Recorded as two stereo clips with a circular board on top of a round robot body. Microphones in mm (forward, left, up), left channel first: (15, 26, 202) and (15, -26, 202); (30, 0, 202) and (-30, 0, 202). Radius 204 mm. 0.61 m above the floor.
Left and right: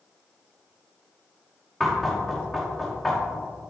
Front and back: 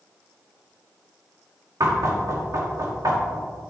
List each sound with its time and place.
1.8 s knocking: 175° left, 2.5 m